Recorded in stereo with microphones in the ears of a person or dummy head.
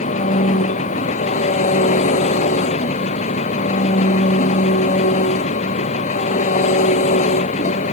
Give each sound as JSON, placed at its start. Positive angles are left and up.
{"t": 0.0, "sound": "an engine running", "side_deg": 40}